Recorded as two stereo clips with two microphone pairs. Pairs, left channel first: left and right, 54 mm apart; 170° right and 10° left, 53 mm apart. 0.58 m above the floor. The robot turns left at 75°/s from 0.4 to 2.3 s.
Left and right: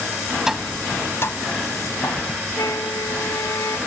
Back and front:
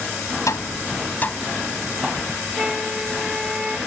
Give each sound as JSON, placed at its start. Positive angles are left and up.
{"t": 0.5, "sound": "tapping", "azimuth_deg": -170}
{"t": 2.6, "sound": "a flute", "azimuth_deg": 80}